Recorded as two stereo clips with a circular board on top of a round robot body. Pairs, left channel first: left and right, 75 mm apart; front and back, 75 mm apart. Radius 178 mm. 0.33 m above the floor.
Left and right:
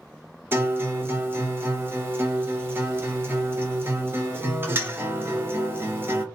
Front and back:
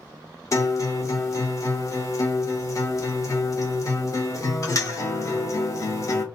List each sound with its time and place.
0.5 s a guitar: 35° right, 0.9 m